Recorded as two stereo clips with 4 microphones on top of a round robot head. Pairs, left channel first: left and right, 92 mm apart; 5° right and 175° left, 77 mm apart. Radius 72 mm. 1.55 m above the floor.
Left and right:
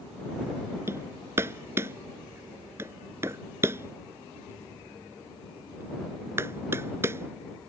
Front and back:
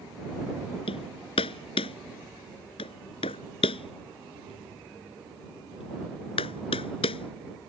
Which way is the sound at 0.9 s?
20° right.